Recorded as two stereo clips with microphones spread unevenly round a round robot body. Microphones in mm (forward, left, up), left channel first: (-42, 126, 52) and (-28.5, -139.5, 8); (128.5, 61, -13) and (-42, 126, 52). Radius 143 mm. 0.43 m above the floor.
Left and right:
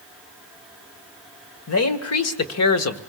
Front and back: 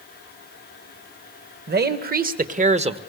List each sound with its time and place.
1.7 s a man speaking: 120° left, 2.0 m; by 3.0 s 90° left, 1.4 m